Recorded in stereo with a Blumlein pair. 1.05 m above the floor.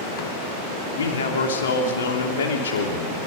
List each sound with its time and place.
0.9 s a man speaking: 65° left, 3 m